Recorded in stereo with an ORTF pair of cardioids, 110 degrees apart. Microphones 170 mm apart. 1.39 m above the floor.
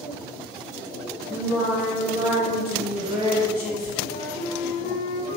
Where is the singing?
65° left, 1.6 m.